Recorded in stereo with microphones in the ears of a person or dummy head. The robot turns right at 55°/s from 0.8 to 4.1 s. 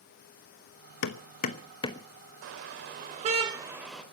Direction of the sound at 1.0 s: 60° left (ahead or behind).